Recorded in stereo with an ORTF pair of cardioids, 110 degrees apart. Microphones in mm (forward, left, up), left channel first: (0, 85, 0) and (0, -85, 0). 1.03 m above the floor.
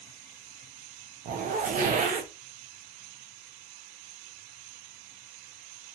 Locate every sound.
1.2 s a zipper: 50° right, 0.7 m